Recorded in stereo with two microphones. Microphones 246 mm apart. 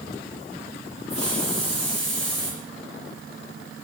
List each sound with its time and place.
1.1 s a hiss: 70° left (ahead or behind), 7.5 m